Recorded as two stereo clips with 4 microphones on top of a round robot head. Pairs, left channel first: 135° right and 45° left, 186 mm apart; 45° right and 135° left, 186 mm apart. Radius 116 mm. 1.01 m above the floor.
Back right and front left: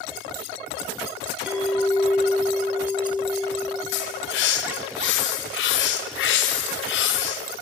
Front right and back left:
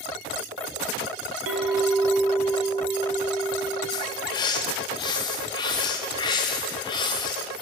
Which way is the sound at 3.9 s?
115° right.